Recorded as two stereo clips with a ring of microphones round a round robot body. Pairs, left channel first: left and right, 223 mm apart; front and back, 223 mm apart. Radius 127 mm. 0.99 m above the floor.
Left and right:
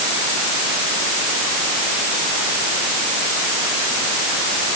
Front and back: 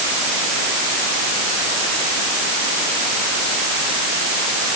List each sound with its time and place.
Only background noise.